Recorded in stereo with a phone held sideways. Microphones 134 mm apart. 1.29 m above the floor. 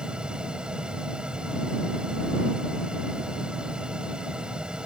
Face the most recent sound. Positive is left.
turn(degrees=-5)  # may be behind; listen again after turning